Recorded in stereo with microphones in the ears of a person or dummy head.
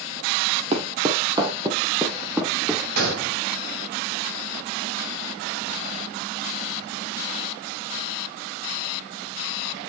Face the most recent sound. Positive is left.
turn(degrees=-60)  # may be behind; listen again after turning